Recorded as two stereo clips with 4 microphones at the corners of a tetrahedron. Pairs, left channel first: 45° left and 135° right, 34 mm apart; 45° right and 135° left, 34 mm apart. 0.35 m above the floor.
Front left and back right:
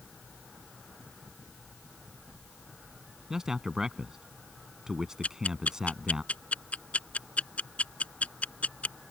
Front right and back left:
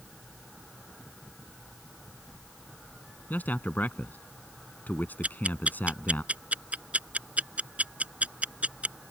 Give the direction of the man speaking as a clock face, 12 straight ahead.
2 o'clock.